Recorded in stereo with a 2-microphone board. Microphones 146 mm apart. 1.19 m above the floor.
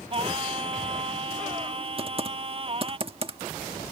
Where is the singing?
40° right (ahead or behind).